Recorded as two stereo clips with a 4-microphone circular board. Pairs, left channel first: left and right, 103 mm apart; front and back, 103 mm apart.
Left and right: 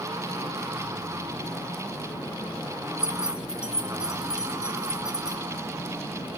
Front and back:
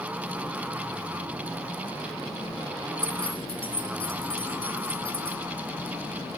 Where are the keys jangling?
10° right, 1.3 m.